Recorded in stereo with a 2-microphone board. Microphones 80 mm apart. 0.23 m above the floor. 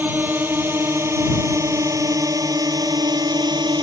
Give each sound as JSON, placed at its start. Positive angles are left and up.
{"t": 0.0, "sound": "a drone", "side_deg": -25}